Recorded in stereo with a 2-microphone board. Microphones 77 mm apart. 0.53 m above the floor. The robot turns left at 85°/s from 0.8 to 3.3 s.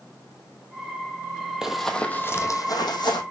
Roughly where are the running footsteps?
Centre.